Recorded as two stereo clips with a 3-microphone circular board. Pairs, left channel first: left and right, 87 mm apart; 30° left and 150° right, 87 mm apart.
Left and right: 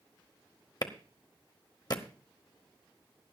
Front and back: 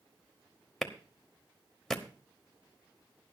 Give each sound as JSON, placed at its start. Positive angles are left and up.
{"t": 0.8, "sound": "a clap", "azimuth_deg": 115, "distance_m": 1.0}